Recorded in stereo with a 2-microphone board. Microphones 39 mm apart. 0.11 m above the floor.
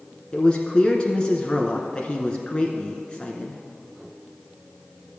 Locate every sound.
0.3 s a man speaking: 25° left (ahead or behind), 1.1 m